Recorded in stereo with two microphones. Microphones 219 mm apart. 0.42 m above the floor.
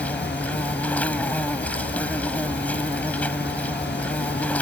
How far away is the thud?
No thud in this recording.